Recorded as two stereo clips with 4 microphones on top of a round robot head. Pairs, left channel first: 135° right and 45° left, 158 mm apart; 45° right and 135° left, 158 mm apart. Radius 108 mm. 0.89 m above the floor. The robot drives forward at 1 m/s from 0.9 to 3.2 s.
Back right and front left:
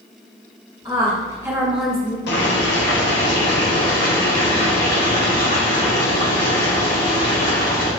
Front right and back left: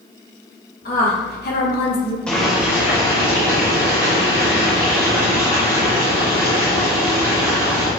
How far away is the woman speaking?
About 1.6 m.